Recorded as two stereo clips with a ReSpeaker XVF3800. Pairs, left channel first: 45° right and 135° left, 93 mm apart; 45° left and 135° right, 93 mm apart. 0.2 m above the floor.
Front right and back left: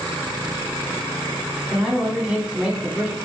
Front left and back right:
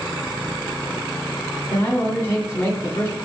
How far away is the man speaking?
About 1.6 m.